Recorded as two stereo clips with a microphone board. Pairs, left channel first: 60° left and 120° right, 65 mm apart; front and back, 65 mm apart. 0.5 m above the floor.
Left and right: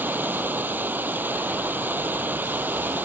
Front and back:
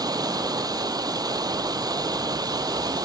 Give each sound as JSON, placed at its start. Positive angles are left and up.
{"t": 0.0, "sound": "running water", "azimuth_deg": 180}